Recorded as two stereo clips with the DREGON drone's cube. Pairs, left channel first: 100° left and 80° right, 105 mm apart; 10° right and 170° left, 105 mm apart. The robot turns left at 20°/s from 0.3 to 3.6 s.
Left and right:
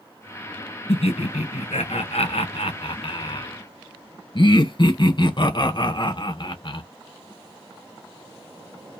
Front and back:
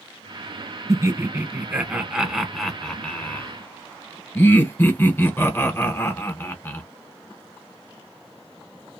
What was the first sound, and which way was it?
Laughter, 110° left.